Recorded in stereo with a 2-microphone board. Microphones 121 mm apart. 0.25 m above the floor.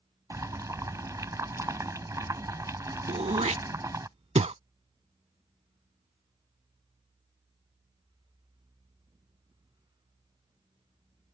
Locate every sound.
0.3 s boiling: 25° right (ahead or behind)
3.1 s throat clearing: 60° right (ahead or behind)